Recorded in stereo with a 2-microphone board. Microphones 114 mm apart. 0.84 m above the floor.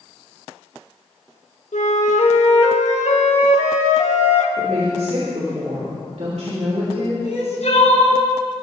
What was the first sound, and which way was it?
A flute, 85° left.